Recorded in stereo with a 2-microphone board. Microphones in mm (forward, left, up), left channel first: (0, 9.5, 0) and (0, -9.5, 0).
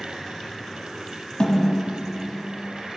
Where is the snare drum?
45° left (ahead or behind), 2 m.